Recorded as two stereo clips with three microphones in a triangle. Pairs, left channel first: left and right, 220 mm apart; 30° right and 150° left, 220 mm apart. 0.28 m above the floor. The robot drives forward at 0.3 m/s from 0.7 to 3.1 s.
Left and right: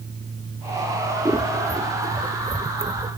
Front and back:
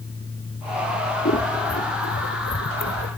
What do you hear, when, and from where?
1.2 s scissors: 15° right, 0.9 m; by 3.2 s 35° right, 0.5 m